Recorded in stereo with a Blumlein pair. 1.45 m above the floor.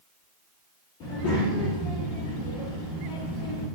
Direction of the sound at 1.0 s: 35° left.